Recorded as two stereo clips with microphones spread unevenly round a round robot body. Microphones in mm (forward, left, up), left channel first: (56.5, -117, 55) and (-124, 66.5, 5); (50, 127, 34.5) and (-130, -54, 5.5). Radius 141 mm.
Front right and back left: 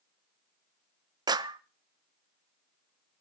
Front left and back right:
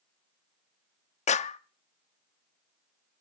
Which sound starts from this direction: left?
A clap, at 1.3 s.